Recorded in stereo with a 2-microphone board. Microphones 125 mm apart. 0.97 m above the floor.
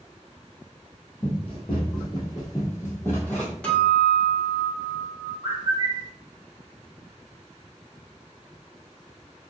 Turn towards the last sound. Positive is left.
turn(degrees=-40)  # may be behind; listen again after turning